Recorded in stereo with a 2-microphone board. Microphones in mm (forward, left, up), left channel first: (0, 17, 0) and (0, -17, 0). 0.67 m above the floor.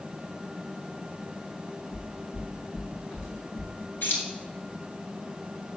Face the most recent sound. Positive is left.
turn(degrees=75)  # may be behind; listen again after turning